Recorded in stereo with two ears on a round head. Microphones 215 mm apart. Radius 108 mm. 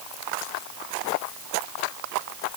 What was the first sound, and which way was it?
Only background noise.